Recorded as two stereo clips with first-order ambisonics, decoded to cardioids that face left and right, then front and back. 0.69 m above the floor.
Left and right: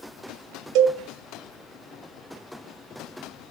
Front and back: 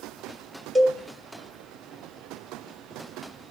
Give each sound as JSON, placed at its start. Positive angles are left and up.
{"t": 0.8, "sound": "a cowbell", "azimuth_deg": -100, "distance_m": 1.3}